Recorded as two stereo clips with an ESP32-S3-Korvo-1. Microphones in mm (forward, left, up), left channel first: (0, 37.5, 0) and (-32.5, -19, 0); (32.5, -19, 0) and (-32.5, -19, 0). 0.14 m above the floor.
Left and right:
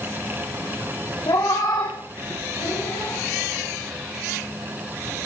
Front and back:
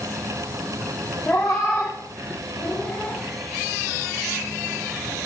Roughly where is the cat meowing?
Ahead left.